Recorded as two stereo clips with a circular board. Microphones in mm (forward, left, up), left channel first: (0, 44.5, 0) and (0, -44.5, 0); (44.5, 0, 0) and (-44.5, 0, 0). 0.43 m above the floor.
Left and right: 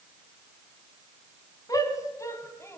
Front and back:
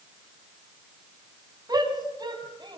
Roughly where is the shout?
Behind left.